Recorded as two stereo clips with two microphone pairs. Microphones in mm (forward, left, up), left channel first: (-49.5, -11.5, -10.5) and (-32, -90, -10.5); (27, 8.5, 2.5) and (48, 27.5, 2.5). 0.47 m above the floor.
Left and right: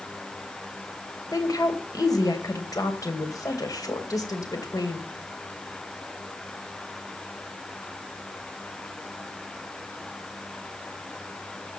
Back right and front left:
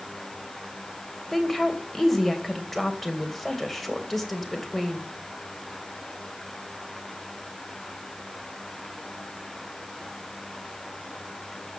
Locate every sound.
1.3 s a woman speaking: 135° left, 2.5 m